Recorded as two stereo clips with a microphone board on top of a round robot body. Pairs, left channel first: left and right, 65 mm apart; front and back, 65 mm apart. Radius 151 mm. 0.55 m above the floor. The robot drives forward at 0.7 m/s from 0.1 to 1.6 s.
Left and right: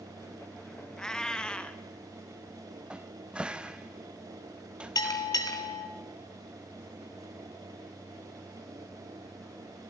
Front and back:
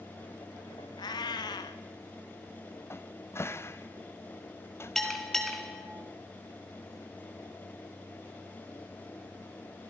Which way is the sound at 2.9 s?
20° right.